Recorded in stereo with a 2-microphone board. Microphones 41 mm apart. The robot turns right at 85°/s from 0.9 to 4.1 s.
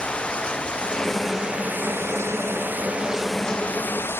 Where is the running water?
155° left; by 4.2 s 65° left.